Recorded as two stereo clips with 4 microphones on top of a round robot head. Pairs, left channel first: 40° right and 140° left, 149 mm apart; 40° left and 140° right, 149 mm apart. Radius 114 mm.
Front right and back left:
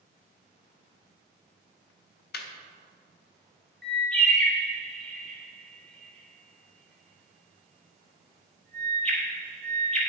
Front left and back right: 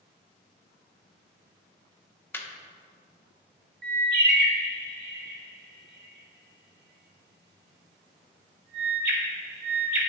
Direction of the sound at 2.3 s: 35° right.